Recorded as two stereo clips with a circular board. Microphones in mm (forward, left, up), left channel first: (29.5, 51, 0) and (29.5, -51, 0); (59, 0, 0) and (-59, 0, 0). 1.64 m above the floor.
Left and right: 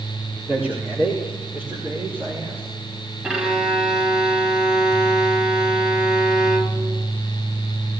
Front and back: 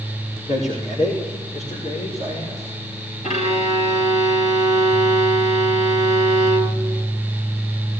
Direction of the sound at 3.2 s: 10° right.